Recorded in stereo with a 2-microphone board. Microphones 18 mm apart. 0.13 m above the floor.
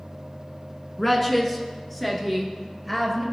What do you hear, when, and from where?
1.0 s a woman speaking: 10° left (ahead or behind), 1.1 m